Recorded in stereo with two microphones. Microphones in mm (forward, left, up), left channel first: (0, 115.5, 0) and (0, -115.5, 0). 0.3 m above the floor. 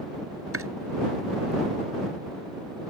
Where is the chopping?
75° right (ahead or behind).